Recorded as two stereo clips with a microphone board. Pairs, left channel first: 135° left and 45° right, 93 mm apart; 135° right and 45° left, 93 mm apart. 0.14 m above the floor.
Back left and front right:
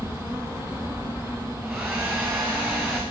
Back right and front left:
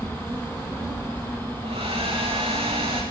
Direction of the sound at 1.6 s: 35° left.